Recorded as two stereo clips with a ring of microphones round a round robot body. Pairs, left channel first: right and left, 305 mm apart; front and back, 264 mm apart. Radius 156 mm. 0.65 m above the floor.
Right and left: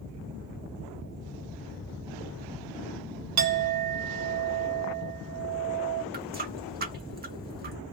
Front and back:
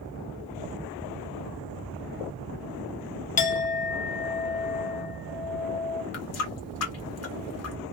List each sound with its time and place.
3.4 s a clink: 60° left, 0.9 m
6.1 s a running tap: 30° left, 1.4 m